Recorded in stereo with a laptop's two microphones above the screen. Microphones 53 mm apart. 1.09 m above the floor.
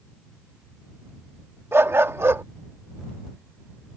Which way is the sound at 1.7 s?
45° right (ahead or behind).